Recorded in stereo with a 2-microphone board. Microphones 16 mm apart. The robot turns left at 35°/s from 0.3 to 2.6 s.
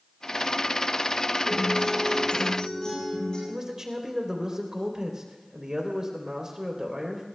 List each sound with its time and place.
1.5 s a guitar: 75° left, 9.5 m; by 3.4 s 35° left, 9.5 m
3.5 s a man speaking: 30° right (ahead or behind), 3.5 m